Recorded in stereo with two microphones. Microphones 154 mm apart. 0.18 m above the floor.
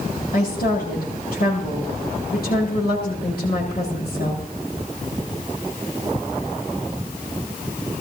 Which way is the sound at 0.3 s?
75° left (ahead or behind).